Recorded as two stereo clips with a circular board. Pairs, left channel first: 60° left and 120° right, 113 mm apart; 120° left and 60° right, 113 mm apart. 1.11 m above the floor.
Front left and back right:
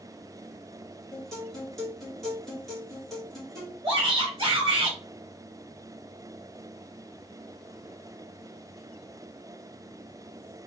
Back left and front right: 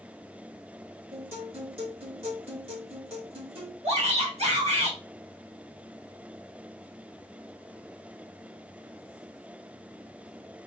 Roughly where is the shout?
Right.